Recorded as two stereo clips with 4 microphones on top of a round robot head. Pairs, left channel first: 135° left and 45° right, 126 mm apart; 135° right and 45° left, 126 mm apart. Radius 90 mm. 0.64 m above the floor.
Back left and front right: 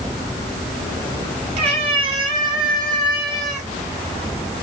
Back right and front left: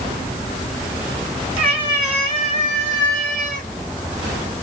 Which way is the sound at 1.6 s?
Straight ahead.